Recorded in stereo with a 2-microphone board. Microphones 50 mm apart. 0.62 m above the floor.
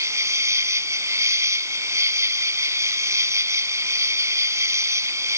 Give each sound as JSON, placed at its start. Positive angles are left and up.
{"t": 0.0, "sound": "an insect", "side_deg": -85}